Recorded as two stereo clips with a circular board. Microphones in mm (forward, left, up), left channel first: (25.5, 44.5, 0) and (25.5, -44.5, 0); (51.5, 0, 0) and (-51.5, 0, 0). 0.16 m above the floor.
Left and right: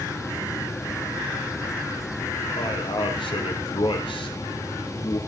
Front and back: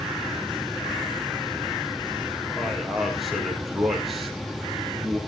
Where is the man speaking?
90° left, 4 m.